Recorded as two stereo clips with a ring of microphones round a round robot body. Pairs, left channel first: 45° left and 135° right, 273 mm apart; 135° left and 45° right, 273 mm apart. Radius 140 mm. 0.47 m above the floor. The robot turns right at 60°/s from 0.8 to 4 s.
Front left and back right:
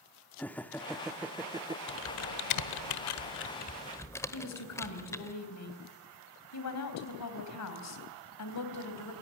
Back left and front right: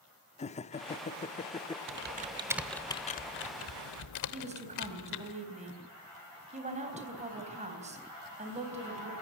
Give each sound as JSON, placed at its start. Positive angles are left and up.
{"t": 0.4, "sound": "laughter", "azimuth_deg": 120, "distance_m": 0.7}
{"t": 1.9, "sound": "typing on a keyboard", "azimuth_deg": 0, "distance_m": 1.2}
{"t": 4.3, "sound": "a woman speaking", "azimuth_deg": 20, "distance_m": 3.5}